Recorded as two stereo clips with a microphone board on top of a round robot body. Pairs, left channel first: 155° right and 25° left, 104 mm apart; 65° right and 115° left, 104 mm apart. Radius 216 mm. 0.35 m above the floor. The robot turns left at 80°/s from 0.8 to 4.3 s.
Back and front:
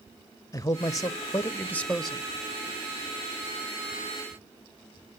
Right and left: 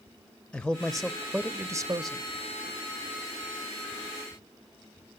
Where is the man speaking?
140° right, 0.8 m; by 2.2 s 105° left, 0.8 m.